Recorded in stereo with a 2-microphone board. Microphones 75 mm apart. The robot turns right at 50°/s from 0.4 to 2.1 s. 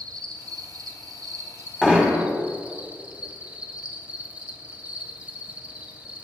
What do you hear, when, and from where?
0.0 s an insect: 105° right, 1.6 m; by 6.2 s 20° right, 1.6 m
1.8 s hammering: 5° right (ahead or behind), 2 m; by 2.2 s 20° right (ahead or behind), 2 m